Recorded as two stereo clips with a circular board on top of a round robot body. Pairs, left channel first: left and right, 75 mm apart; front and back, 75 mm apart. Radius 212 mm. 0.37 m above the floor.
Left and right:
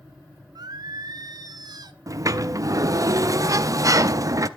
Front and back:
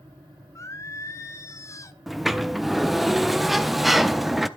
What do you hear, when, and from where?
0.6 s singing: 55° right, 0.7 m
2.1 s a sliding door: 90° right, 1.0 m